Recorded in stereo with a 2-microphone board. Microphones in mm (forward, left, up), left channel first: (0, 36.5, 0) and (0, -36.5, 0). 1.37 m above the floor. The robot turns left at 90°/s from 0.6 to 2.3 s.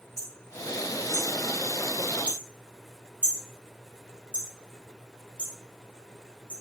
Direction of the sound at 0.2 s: 50° left (ahead or behind).